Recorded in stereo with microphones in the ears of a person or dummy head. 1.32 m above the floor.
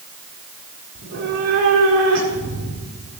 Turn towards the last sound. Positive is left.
turn(degrees=-50)  # may be behind; listen again after turning